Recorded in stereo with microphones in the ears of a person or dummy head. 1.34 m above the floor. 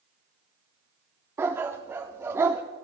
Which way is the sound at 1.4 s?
15° right (ahead or behind).